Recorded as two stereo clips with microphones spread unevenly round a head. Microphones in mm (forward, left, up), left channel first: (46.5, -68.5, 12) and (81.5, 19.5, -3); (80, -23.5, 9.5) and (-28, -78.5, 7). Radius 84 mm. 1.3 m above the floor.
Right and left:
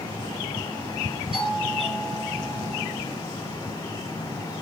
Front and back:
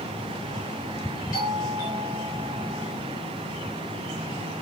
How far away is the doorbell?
About 5 m.